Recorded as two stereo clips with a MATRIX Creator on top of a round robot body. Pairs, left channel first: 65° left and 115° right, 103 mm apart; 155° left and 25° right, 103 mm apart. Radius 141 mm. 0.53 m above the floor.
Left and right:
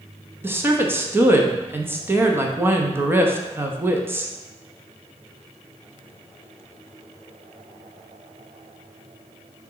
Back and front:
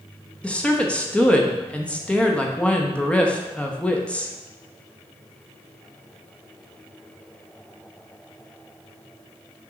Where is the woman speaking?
140° right, 1.1 m.